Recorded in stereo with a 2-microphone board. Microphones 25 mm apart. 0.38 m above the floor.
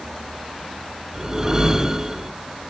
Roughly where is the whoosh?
Right.